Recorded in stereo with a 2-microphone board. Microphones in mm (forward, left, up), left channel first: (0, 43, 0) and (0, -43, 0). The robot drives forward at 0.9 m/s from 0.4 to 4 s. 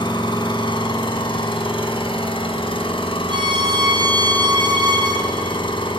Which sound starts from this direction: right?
A violin, at 3.3 s.